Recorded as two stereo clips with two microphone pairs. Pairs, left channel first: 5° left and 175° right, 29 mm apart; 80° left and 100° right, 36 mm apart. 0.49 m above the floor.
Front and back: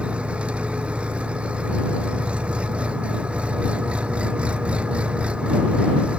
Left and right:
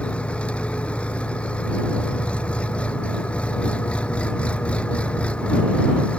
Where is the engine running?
135° left.